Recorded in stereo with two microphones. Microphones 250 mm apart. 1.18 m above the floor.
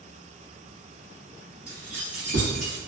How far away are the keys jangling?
About 0.7 m.